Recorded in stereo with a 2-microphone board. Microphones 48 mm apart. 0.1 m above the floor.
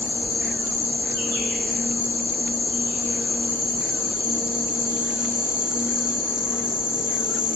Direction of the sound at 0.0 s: 65° left (ahead or behind).